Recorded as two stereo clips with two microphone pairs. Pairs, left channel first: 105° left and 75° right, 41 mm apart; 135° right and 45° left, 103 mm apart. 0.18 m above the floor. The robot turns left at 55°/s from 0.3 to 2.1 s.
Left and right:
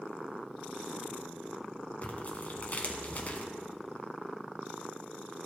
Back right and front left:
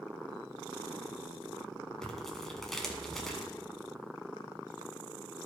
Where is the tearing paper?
145° left, 1.2 m; by 3.5 s 140° left, 1.2 m.